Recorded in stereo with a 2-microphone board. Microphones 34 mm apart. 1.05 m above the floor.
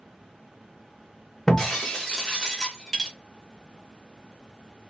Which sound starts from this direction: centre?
Breaking glass, at 1.5 s.